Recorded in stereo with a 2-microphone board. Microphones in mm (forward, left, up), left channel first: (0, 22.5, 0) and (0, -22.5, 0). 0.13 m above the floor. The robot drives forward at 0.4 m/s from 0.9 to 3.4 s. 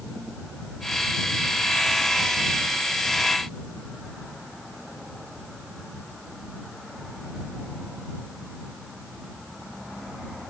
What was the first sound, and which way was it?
Only background noise.